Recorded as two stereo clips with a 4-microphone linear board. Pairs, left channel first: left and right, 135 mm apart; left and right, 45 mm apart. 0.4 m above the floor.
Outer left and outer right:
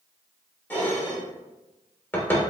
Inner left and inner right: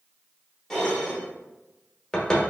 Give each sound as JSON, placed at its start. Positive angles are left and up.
{"t": 0.7, "sound": "dishes clattering", "side_deg": 15, "distance_m": 0.8}